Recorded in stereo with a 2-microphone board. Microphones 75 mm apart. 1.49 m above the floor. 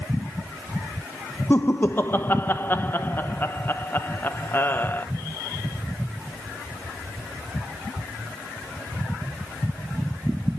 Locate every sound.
1.5 s laughter: 25° left (ahead or behind), 1.1 m